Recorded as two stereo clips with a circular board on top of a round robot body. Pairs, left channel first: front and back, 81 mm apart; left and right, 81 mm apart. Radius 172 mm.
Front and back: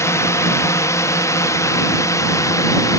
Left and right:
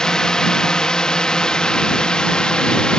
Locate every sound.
0.0 s a drone: 15° left